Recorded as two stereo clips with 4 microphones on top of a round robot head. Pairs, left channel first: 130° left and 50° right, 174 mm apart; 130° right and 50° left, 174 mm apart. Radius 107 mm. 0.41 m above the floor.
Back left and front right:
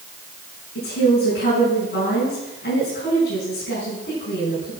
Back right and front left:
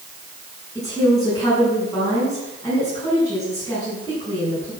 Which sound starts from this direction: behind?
A woman speaking, at 0.8 s.